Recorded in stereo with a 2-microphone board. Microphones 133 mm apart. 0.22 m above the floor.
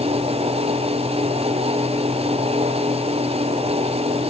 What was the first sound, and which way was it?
Only background noise.